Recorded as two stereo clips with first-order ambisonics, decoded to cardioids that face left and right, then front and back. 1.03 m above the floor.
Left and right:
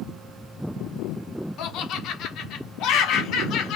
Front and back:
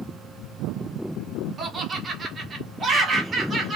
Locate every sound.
1.6 s laughter: 115° left, 1.1 m